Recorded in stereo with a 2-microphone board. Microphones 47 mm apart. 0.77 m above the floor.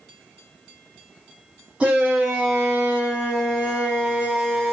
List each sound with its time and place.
1.8 s a shout: 20° right (ahead or behind), 1.5 m